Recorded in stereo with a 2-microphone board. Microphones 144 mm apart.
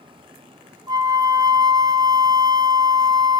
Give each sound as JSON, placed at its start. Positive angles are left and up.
{"t": 0.9, "sound": "a flute", "side_deg": -30, "distance_m": 1.1}